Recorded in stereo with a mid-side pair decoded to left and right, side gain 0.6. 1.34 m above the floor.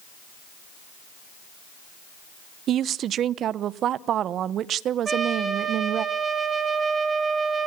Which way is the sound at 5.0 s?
30° right.